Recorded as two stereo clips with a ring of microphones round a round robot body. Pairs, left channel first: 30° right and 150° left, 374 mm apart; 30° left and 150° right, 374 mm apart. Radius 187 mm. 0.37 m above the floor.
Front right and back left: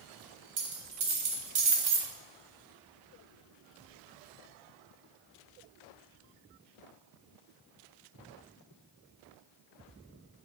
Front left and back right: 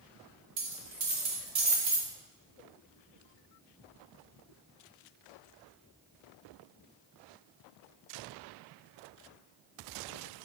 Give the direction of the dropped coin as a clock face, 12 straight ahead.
7 o'clock.